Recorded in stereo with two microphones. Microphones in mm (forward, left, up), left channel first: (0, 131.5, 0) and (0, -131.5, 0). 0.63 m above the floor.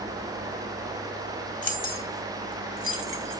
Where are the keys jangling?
30° left (ahead or behind), 2 m; by 3.4 s 55° left (ahead or behind), 2.5 m.